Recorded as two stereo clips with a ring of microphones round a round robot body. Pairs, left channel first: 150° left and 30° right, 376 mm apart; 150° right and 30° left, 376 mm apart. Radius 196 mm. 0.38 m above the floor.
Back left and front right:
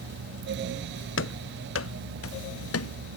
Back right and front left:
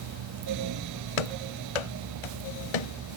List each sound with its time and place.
1.2 s running footsteps: 150° right; by 2.9 s 155° right